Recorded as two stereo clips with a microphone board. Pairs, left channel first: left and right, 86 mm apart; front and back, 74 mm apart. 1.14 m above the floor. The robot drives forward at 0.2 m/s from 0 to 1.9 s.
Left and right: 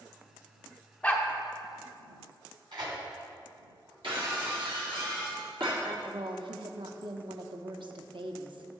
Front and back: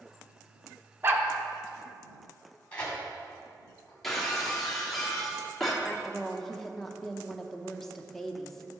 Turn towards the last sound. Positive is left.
turn(degrees=-85)